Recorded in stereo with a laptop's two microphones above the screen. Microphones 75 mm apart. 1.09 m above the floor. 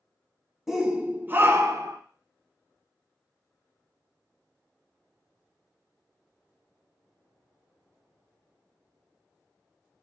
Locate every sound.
0.7 s a shout: 5° right (ahead or behind), 0.7 m; by 2.0 s 45° right (ahead or behind), 0.7 m